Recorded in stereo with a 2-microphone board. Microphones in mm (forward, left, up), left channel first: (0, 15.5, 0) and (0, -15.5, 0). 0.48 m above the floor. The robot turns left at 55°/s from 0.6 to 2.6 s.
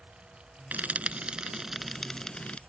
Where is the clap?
I don't hear a clap.